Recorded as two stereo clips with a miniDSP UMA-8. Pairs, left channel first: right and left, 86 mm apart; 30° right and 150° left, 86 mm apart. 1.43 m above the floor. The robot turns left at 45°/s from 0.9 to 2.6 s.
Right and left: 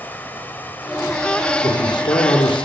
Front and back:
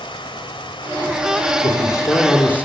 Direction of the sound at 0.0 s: 20° right.